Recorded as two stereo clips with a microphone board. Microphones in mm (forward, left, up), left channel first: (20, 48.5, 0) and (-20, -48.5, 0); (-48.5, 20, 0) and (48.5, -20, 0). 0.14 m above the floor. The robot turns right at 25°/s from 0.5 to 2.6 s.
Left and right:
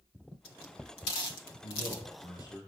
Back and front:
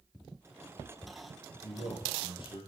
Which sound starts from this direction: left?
A man speaking, at 1.6 s.